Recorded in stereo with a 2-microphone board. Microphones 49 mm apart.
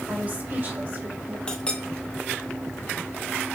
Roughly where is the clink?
Left.